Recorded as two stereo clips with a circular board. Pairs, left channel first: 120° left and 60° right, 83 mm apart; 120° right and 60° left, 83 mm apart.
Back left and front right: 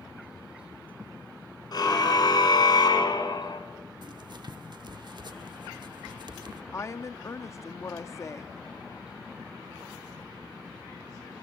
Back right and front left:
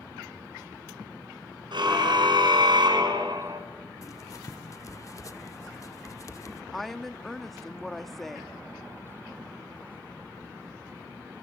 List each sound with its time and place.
1.7 s a car horn: 85° left, 5 m; by 3.6 s 90° left, 2.5 m
4.0 s writing: 75° right, 1.1 m
6.7 s a woman speaking: 155° left, 0.7 m